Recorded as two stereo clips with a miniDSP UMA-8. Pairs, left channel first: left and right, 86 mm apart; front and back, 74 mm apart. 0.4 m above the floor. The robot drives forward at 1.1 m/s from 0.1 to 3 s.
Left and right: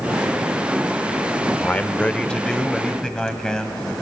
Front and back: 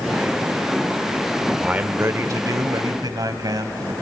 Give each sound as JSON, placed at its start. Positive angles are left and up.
{"t": 1.6, "sound": "a man speaking", "azimuth_deg": 120, "distance_m": 0.8}